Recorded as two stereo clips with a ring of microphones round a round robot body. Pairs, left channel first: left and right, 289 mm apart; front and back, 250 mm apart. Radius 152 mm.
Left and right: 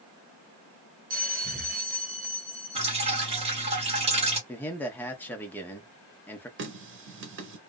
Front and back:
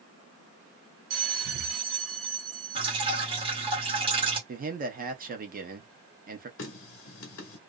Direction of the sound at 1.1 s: 155° right.